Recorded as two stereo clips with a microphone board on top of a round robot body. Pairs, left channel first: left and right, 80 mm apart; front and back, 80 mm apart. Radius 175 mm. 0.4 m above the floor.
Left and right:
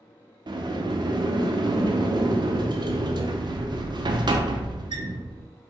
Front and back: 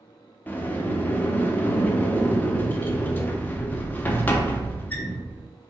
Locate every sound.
0.5 s a sliding door: 70° right, 0.5 m